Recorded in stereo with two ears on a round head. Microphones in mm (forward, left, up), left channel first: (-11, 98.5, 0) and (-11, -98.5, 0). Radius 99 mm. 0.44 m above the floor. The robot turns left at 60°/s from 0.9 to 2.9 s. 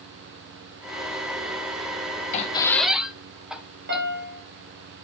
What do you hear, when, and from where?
2.3 s a squeak: 30° left (ahead or behind), 0.8 m; by 4.0 s 5° right (ahead or behind), 0.8 m
3.9 s a piano: 50° right (ahead or behind), 2 m